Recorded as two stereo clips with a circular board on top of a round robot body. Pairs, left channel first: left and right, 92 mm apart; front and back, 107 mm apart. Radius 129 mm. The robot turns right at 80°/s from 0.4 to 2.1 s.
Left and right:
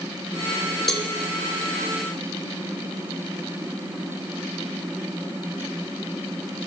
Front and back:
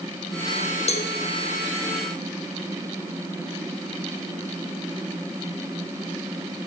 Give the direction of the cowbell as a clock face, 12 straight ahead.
12 o'clock.